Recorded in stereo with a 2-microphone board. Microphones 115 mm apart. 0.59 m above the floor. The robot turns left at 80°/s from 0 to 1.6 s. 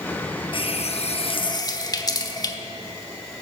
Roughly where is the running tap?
Behind left.